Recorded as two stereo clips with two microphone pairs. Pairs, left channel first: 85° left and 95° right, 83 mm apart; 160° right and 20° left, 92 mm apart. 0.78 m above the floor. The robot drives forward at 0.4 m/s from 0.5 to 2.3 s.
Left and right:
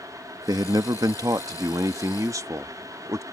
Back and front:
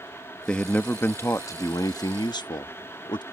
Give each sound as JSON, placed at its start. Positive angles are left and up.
{"t": 0.5, "sound": "a man speaking", "azimuth_deg": -85}